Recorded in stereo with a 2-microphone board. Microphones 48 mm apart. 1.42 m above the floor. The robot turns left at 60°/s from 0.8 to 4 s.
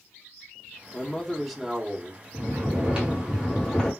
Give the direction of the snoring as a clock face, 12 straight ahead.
4 o'clock.